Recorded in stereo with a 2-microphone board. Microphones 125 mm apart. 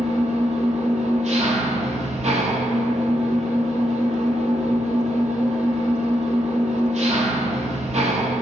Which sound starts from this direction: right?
An engine running, at 0.0 s.